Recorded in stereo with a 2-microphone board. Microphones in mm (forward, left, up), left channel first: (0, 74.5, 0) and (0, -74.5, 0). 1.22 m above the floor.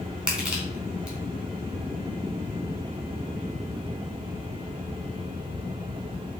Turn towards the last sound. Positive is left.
turn(degrees=-5)  # may be behind; listen again after turning